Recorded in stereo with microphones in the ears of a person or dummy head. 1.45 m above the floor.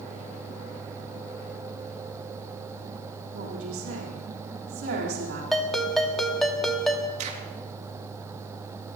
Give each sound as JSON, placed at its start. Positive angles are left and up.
{"t": 3.3, "sound": "a woman speaking", "side_deg": -90, "distance_m": 4.0}
{"t": 5.5, "sound": "a ringtone", "side_deg": 0, "distance_m": 1.3}
{"t": 7.2, "sound": "a crack", "side_deg": -45, "distance_m": 2.5}